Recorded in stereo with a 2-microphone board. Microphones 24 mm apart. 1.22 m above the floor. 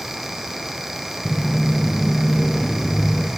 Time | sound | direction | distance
1.2 | footsteps | 5° left (ahead or behind) | 2 m